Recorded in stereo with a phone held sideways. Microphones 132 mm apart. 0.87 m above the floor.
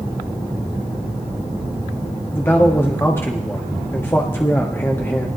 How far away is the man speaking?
About 1.5 m.